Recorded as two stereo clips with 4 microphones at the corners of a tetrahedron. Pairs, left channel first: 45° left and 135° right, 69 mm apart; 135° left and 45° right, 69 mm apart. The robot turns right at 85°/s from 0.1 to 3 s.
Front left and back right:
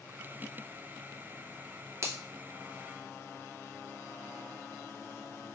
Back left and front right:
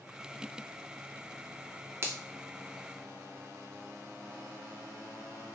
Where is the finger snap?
95° right, 0.5 m; by 2.2 s 85° right, 0.5 m.